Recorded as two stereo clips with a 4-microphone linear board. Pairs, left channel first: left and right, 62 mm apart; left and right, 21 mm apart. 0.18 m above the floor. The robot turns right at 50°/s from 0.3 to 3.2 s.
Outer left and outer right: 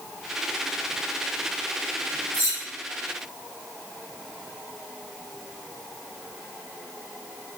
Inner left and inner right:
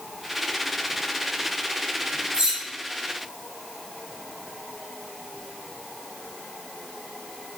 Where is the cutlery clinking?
45° right (ahead or behind), 1.1 m.